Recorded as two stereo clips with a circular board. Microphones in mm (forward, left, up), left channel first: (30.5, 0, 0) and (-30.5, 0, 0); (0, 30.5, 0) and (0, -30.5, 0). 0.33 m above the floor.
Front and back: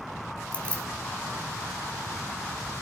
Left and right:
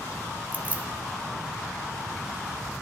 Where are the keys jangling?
50° right, 0.9 m.